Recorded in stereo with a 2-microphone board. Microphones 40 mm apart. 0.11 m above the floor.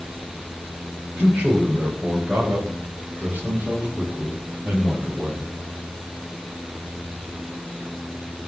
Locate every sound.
1.2 s a man speaking: 30° right (ahead or behind), 9.5 m; by 5.5 s 35° right (ahead or behind), 12 m